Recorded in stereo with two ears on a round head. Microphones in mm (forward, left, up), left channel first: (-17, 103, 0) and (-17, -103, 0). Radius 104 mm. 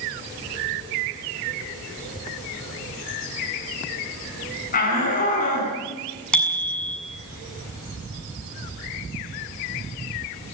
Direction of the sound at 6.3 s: 5° left (ahead or behind).